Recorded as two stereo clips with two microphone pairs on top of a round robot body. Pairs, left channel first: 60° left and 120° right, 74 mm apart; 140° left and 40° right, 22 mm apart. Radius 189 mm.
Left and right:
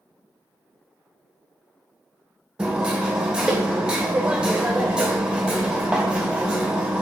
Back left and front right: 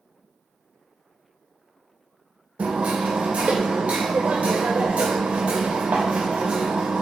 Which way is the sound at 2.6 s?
35° right.